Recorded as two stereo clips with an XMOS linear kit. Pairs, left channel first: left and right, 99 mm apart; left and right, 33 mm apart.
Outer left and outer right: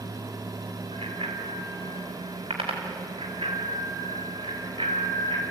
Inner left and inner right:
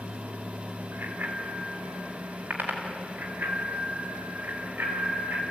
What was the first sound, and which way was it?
A bicycle bell, 80° right.